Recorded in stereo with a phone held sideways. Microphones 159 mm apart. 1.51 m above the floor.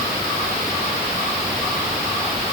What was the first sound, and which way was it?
Only background noise.